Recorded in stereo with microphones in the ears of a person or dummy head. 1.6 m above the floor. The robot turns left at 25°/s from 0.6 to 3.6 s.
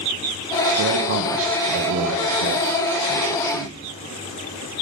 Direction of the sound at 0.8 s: 65° right.